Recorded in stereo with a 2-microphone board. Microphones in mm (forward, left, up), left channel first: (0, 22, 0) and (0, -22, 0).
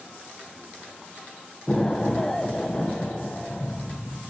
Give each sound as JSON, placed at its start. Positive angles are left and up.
{"t": 1.7, "sound": "an explosion", "side_deg": 15, "distance_m": 1.1}